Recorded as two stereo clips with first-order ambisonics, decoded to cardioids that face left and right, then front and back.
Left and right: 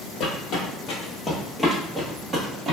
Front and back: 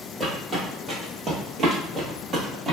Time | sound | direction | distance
0.2 | footsteps | 110° left | 1.2 m